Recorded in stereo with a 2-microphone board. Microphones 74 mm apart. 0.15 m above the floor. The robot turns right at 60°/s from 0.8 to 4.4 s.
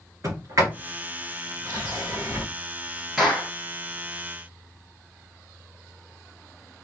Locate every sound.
0.2 s a sliding door: 45° right (ahead or behind), 3.5 m; by 2.5 s 40° right (ahead or behind), 3.5 m
3.2 s a clap: centre (ahead or behind), 2.5 m; by 3.5 s 15° left (ahead or behind), 2.5 m